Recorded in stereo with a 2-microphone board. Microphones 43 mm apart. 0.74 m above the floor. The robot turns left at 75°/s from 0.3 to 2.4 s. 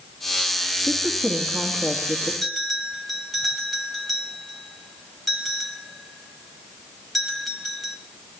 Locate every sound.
0.9 s a woman speaking: 140° right, 1.3 m; by 2.3 s 110° left, 1.3 m
2.4 s a bell: centre (ahead or behind), 1.7 m